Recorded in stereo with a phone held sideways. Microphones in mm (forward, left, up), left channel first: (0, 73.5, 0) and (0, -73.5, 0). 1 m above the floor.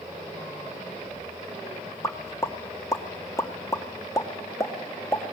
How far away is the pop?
About 2 m.